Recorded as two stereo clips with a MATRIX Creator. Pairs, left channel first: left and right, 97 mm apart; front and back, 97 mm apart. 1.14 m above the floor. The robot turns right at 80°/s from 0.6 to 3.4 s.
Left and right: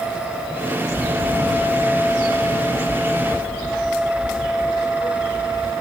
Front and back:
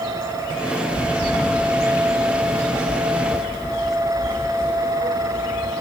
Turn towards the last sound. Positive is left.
turn(degrees=-70)